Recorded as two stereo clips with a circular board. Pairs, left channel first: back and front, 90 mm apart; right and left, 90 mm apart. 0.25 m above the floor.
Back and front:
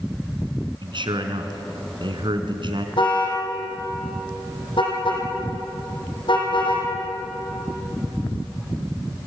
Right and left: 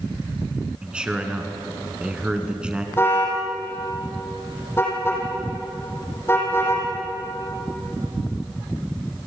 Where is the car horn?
155° right, 6 m.